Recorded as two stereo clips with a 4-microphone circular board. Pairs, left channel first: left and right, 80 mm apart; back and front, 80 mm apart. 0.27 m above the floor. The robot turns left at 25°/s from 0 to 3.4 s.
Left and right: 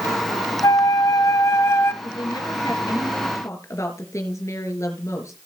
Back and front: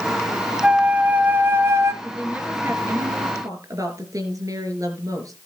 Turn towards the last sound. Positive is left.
turn(degrees=40)